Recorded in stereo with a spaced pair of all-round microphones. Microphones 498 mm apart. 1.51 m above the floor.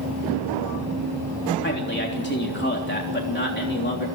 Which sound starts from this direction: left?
A man speaking, at 1.6 s.